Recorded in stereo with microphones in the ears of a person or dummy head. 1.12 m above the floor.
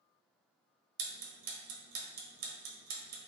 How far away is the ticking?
About 1.2 m.